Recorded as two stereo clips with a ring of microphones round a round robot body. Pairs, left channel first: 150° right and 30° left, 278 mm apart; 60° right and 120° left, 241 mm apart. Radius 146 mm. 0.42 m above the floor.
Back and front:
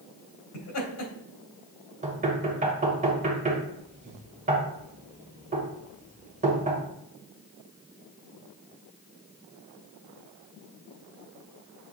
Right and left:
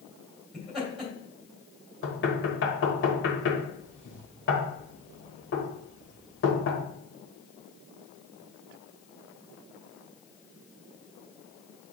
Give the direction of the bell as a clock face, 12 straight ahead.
No bell in this recording.